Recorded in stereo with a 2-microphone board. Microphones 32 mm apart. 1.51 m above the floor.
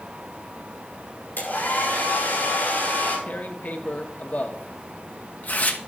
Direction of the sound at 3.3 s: 55° left (ahead or behind).